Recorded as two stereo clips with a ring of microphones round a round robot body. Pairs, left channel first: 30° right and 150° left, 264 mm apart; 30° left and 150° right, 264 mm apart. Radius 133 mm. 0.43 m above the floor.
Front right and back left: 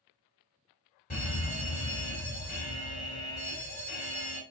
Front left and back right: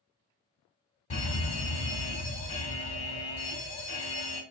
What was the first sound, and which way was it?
A fire alarm, 5° right.